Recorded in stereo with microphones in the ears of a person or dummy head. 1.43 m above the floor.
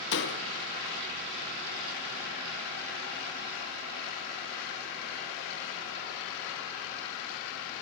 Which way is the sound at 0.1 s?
70° left (ahead or behind).